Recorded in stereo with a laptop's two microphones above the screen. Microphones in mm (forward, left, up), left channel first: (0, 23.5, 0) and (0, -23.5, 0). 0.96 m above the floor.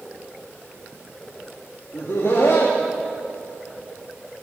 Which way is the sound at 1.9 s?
65° left (ahead or behind).